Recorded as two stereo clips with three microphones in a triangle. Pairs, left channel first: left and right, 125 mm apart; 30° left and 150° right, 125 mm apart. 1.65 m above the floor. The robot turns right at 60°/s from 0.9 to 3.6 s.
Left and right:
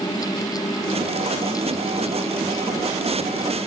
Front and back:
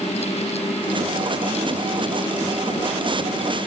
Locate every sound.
Only background noise.